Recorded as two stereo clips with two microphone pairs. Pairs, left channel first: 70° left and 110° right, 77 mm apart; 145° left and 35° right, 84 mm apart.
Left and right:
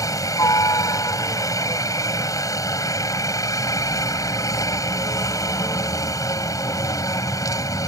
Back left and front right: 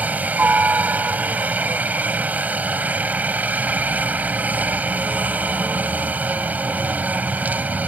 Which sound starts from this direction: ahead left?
A helicopter, at 0.0 s.